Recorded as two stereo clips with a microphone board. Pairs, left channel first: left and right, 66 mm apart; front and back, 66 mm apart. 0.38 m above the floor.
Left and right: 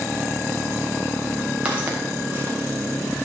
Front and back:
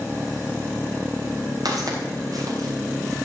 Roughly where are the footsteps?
Behind.